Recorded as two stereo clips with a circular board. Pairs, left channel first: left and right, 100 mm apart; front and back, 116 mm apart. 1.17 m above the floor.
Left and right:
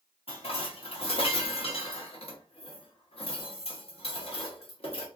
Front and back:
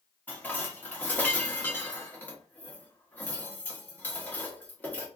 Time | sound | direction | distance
0.3 | dishes clattering | 75° left | 0.9 m